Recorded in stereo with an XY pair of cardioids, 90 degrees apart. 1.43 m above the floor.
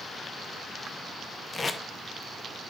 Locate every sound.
1.5 s tape being pulled: 35° left, 0.8 m